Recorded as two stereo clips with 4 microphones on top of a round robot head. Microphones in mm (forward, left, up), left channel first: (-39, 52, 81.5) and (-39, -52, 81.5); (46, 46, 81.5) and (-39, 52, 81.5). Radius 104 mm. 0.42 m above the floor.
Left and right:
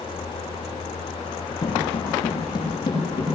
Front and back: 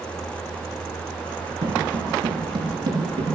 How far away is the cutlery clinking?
No cutlery clinking in this recording.